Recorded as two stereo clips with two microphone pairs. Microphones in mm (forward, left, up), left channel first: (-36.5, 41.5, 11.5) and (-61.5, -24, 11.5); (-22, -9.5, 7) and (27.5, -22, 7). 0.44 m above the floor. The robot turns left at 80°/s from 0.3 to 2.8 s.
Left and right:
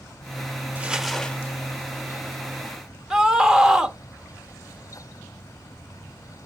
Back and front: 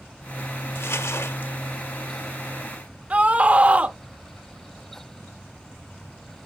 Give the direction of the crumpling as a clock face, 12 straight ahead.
6 o'clock.